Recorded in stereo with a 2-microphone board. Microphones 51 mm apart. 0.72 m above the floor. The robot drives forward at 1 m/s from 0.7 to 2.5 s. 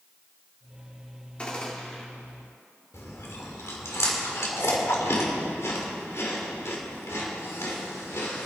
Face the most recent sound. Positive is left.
turn(degrees=65)  # may be behind; listen again after turning